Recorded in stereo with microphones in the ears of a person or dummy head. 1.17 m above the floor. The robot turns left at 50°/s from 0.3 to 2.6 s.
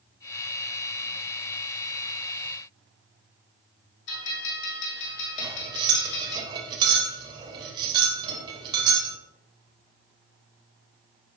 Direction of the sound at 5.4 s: 35° right (ahead or behind).